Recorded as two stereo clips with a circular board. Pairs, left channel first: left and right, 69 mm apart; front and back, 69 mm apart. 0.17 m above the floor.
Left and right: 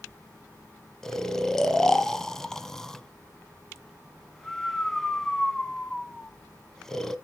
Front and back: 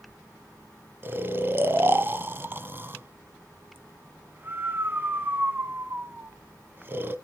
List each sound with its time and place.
1.0 s snoring: 165° left, 0.6 m